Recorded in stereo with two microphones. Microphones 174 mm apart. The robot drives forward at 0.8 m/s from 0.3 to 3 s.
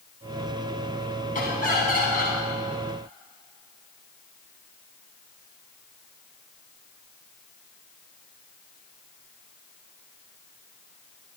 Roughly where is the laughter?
Left.